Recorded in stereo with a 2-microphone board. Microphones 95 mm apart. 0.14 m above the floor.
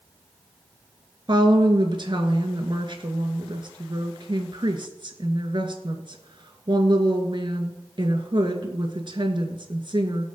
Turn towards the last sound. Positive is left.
turn(degrees=-50)  # may be behind; listen again after turning